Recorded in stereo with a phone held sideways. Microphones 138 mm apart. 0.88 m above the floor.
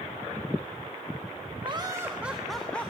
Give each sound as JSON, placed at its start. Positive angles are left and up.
{"t": 1.6, "sound": "laughter", "side_deg": -35, "distance_m": 1.1}